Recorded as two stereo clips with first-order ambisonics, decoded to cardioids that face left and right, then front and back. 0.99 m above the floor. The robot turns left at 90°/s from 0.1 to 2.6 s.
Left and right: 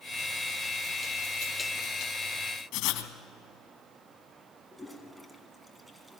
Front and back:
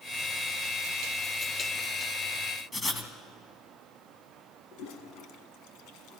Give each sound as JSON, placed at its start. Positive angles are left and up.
{"t": 2.7, "sound": "writing", "azimuth_deg": 70, "distance_m": 1.9}
{"t": 4.7, "sound": "a toilet flushing", "azimuth_deg": 0, "distance_m": 1.6}